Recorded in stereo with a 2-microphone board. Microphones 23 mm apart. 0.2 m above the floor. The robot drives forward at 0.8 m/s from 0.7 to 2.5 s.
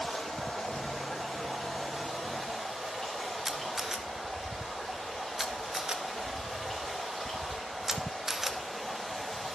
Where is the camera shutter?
15° right (ahead or behind), 0.8 m.